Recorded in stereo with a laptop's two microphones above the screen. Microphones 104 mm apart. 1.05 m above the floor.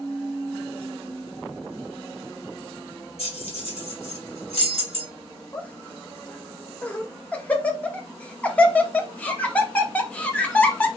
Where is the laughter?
15° left (ahead or behind), 0.9 m.